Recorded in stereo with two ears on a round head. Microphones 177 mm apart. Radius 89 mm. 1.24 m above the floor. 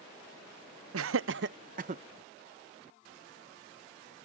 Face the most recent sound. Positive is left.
turn(degrees=-35)  # may be behind; listen again after turning